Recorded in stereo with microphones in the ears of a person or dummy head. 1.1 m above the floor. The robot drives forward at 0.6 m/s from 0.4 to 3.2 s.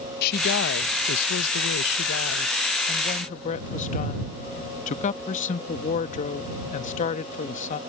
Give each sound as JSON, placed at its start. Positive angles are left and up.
{"t": 0.2, "sound": "a woman speaking", "side_deg": 55}